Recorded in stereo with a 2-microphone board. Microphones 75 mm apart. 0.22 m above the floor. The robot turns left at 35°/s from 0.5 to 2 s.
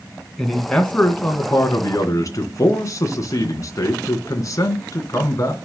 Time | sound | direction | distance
0.4 | a man speaking | 175° left | 2.5 m